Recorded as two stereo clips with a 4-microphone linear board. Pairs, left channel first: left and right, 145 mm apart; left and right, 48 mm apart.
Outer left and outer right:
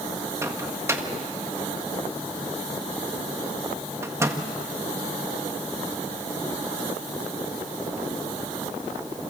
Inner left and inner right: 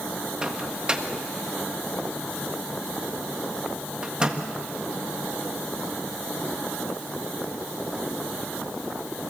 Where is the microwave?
20° right (ahead or behind), 1.6 m.